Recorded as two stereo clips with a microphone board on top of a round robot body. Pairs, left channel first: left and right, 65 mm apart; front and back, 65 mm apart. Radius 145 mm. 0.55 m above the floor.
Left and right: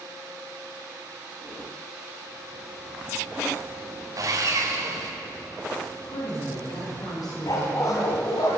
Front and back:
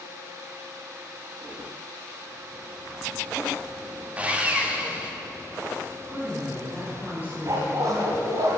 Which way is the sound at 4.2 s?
110° right.